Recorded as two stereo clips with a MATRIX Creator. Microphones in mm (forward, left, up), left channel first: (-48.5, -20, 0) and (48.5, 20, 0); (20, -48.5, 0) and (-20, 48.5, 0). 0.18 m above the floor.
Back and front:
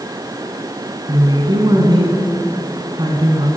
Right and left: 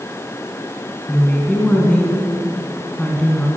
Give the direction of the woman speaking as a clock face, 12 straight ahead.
12 o'clock.